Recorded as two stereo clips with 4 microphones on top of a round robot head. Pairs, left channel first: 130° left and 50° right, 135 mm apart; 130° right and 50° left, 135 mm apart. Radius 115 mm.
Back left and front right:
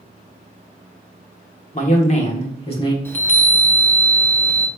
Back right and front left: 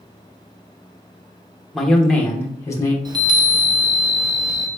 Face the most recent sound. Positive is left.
turn(degrees=70)